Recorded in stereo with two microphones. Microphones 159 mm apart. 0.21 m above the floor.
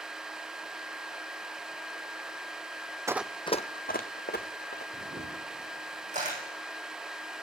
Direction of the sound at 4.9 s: 50° right (ahead or behind).